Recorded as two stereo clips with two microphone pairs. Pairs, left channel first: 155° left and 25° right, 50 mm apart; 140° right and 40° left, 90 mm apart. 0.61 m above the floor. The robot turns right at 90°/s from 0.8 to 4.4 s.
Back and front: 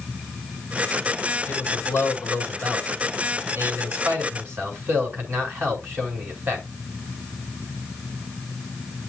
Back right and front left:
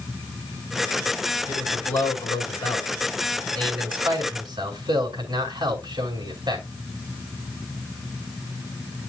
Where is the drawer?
I don't hear a drawer.